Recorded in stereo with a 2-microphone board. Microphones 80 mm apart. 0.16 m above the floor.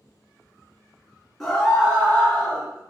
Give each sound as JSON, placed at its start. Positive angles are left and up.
{"t": 1.4, "sound": "a scream", "side_deg": 0, "distance_m": 2.0}